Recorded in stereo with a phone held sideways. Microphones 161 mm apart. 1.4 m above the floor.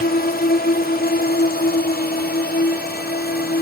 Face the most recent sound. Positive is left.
turn(degrees=75)  # may be behind; listen again after turning